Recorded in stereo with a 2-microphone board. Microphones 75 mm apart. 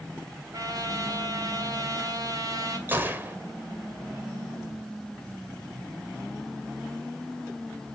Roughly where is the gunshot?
Right.